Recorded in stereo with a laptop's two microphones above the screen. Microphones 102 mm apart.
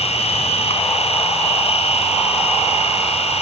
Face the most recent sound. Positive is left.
turn(degrees=80)